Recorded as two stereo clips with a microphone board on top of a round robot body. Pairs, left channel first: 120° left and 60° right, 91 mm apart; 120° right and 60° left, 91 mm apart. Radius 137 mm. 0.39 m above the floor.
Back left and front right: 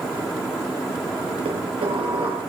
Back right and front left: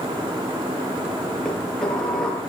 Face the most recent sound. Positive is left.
turn(degrees=-35)